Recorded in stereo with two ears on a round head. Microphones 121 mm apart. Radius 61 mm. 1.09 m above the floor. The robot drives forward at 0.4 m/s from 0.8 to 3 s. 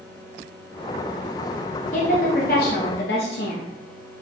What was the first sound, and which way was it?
A woman speaking, 55° left (ahead or behind).